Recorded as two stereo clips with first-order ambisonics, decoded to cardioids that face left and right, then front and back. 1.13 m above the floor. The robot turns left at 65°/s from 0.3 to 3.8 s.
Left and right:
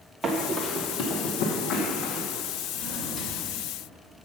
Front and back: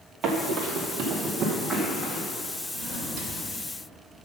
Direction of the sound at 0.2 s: 160° right.